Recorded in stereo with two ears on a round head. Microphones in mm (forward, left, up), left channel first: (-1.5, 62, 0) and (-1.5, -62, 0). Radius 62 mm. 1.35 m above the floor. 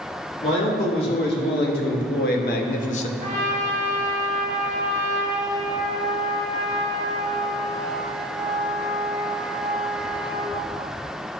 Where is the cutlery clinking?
No cutlery clinking in this recording.